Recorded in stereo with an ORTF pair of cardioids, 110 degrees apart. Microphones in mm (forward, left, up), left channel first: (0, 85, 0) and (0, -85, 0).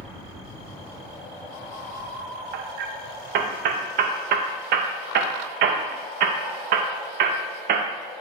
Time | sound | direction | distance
2.5 | hammering | 65° right | 0.7 m